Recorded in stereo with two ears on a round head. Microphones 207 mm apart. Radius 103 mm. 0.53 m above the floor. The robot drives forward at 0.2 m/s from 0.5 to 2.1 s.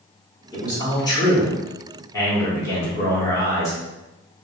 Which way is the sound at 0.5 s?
20° left (ahead or behind).